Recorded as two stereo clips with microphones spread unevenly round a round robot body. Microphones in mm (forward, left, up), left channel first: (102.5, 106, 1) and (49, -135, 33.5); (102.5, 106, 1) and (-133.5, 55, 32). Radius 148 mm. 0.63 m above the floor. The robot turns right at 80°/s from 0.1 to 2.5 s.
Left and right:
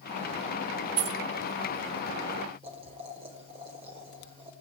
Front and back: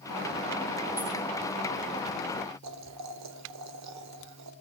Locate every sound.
1.0 s keys jangling: 85° right, 0.9 m; by 1.2 s 65° right, 0.9 m
2.6 s boiling: 175° right, 1.7 m